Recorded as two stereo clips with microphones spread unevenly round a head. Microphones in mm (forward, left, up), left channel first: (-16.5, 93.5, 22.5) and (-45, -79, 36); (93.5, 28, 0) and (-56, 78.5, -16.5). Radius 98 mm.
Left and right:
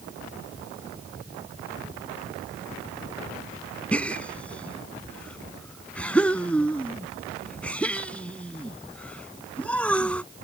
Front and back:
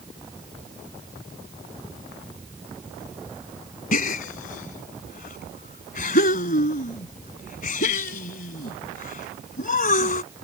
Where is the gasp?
5° right.